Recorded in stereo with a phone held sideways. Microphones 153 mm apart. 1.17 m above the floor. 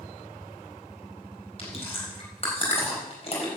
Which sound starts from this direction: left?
Chewing, at 1.6 s.